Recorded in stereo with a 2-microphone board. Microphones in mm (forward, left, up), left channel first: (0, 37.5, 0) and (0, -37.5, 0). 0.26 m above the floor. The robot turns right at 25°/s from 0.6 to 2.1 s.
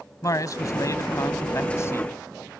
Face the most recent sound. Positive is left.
turn(degrees=130)